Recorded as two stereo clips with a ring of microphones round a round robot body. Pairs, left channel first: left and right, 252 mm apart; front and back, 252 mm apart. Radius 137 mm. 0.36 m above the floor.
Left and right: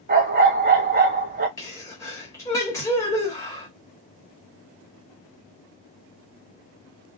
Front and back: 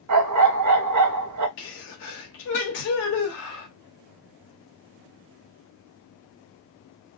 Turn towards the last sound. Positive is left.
turn(degrees=15)